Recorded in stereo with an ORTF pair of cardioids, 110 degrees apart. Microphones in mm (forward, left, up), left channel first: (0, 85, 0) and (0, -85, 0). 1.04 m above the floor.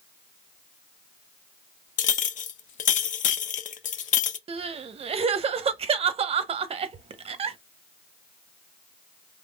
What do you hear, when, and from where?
2.0 s a clink: 50° left, 0.6 m
4.5 s crying: 35° right, 0.6 m